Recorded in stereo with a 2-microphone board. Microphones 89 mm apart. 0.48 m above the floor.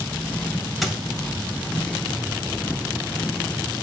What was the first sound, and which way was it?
A squeak, centre (ahead or behind).